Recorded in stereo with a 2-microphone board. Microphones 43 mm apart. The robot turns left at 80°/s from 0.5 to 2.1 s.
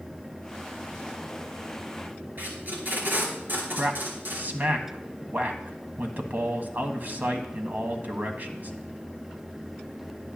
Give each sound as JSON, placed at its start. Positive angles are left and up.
{"t": 2.4, "sound": "tape being pulled", "side_deg": -50, "distance_m": 4.0}
{"t": 3.7, "sound": "a man speaking", "side_deg": -45, "distance_m": 1.5}